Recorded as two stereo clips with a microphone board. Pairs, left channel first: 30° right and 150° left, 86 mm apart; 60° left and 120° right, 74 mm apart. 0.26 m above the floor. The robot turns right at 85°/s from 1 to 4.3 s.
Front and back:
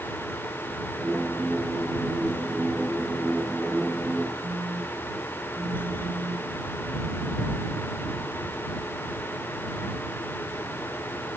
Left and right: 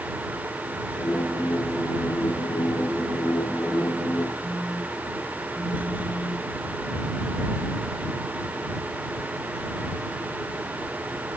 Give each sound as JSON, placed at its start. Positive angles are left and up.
{"t": 4.4, "sound": "a phone buzzing", "azimuth_deg": 145}